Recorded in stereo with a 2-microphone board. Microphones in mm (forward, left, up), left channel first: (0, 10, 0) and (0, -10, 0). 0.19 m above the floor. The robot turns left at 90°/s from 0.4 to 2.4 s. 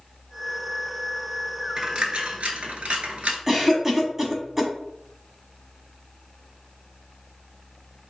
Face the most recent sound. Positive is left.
turn(degrees=-15)  # may be behind; listen again after turning